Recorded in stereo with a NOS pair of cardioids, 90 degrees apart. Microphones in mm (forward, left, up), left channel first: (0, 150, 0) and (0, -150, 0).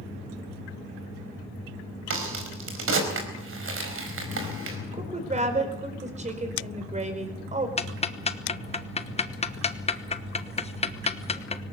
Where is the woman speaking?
25° right, 4.5 m.